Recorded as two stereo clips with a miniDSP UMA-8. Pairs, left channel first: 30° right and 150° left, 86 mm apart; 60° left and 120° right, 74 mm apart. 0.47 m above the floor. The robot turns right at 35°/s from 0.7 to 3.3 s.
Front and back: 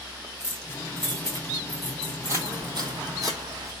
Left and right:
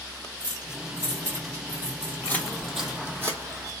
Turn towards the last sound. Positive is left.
turn(degrees=-165)